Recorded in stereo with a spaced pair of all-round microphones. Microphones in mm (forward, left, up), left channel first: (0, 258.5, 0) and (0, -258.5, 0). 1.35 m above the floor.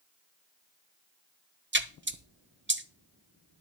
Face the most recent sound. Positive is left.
turn(degrees=-20)  # may be behind; listen again after turning